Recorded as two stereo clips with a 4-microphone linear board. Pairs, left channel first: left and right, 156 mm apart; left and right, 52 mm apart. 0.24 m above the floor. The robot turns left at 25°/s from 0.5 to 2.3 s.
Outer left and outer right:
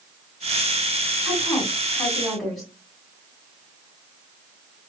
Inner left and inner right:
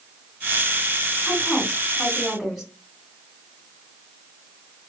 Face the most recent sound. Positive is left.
turn(degrees=0)  # may be behind; listen again after turning